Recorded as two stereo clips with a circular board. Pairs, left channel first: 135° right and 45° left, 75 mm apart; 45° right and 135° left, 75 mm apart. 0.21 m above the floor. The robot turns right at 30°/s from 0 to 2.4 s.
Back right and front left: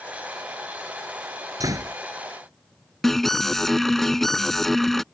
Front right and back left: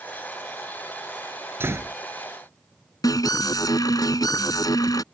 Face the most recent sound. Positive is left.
turn(degrees=-50)